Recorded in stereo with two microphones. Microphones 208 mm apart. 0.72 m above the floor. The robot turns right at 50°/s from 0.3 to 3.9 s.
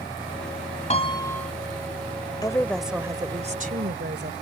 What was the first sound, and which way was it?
A piano, 145° left.